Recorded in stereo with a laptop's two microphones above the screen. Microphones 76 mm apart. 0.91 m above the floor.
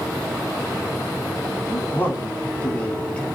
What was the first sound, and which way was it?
A man speaking, 30° left (ahead or behind).